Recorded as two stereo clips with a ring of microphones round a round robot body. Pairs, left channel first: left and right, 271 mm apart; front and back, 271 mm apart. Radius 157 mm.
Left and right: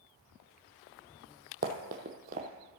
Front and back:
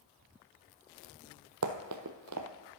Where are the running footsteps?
150° right, 1.0 m.